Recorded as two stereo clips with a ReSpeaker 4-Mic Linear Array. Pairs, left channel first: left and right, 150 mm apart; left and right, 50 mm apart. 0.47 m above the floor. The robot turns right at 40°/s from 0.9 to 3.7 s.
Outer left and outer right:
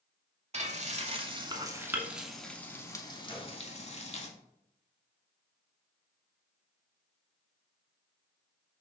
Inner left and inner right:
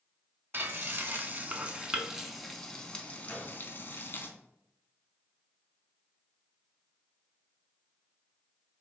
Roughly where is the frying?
Right.